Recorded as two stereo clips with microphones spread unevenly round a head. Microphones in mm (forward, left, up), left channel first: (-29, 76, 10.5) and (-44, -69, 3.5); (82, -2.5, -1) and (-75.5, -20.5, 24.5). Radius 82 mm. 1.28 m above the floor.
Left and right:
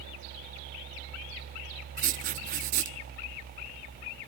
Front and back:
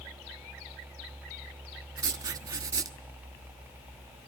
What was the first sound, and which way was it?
Writing, 115° right.